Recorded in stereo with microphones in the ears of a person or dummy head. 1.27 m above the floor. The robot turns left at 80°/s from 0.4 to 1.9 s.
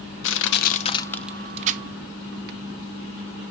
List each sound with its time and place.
0.2 s crushing: 65° left (ahead or behind), 0.8 m; by 2.6 s 50° right (ahead or behind), 0.8 m